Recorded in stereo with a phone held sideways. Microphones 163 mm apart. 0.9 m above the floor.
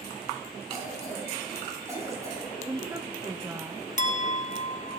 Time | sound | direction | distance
0.7 | a cough | 20° right (ahead or behind) | 7 m
2.7 | a woman speaking | 20° right (ahead or behind) | 0.6 m
4.0 | a clink | 50° left (ahead or behind) | 0.6 m